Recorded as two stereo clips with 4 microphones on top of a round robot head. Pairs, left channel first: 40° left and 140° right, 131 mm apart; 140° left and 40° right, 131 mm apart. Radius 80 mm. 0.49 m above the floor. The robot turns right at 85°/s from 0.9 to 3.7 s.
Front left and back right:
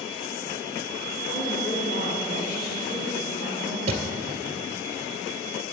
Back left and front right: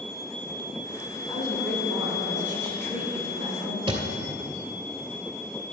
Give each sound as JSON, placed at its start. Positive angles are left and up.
{"t": 1.3, "sound": "a woman speaking", "azimuth_deg": -165, "distance_m": 4.5}
{"t": 3.9, "sound": "a thud", "azimuth_deg": -95, "distance_m": 1.9}